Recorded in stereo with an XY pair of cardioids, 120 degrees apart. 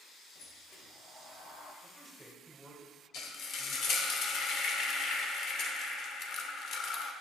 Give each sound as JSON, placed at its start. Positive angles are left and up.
{"t": 0.3, "sound": "a sliding door", "azimuth_deg": 70, "distance_m": 1.1}
{"t": 1.8, "sound": "a man speaking", "azimuth_deg": 0, "distance_m": 1.3}
{"t": 3.1, "sound": "frying", "azimuth_deg": 60, "distance_m": 0.8}